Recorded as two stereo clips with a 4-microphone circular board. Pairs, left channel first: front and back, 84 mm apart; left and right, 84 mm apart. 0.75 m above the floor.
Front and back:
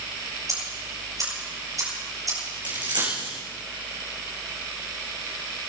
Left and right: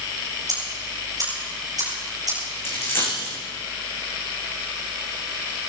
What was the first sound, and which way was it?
Ticking, 135° right.